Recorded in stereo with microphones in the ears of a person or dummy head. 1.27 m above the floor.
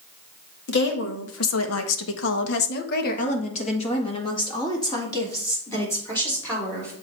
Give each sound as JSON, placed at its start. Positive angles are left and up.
{"t": 0.7, "sound": "a woman speaking", "side_deg": 60, "distance_m": 1.6}